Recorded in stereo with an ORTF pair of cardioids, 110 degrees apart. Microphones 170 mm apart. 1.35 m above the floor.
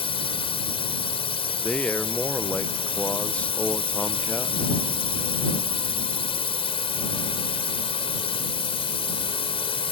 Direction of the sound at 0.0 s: 35° left.